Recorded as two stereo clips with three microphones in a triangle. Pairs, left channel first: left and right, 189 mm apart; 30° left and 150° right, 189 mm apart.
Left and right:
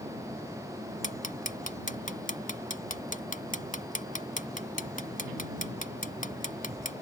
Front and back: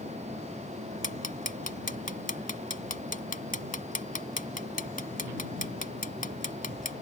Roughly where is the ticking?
Ahead left.